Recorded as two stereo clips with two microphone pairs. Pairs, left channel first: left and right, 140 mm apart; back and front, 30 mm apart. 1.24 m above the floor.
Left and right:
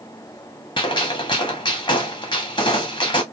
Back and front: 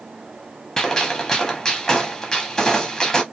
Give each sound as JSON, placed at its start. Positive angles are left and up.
{"t": 0.8, "sound": "a gunshot", "azimuth_deg": 120, "distance_m": 0.7}